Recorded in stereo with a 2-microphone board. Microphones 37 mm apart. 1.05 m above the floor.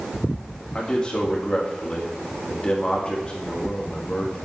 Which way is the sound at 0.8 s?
25° left (ahead or behind).